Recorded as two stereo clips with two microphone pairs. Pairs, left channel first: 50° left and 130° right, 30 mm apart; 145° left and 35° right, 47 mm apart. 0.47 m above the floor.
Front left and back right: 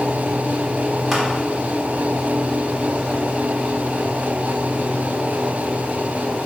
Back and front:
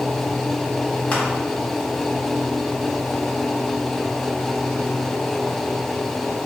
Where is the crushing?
140° left, 1.0 m.